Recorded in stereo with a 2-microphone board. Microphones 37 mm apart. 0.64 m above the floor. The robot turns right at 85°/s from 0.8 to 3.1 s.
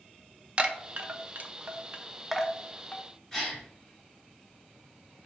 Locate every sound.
0.6 s a chime: 35° right (ahead or behind), 0.5 m; by 3.0 s 40° left (ahead or behind), 0.5 m
3.3 s a gasp: 15° left (ahead or behind), 1.4 m